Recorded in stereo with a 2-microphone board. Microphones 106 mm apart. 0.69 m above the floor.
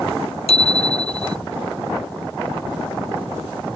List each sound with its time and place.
0.5 s a bicycle bell: 75° left (ahead or behind)